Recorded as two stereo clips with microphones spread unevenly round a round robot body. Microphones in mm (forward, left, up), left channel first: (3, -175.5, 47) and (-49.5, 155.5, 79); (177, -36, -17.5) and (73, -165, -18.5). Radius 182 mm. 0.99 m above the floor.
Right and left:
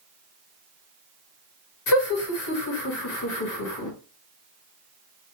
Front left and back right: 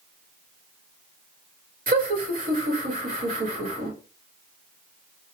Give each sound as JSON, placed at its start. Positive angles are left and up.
{"t": 1.9, "sound": "laughter", "azimuth_deg": -100, "distance_m": 1.9}